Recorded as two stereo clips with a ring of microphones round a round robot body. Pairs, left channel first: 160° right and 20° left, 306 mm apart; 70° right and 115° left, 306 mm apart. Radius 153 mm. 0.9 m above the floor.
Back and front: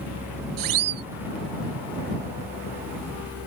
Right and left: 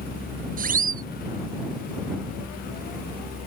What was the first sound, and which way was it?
A siren, 50° left.